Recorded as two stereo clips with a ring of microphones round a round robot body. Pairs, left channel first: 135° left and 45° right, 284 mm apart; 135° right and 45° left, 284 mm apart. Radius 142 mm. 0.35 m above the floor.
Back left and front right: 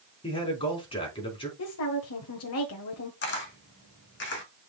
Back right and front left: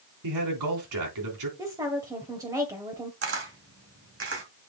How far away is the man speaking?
About 4 m.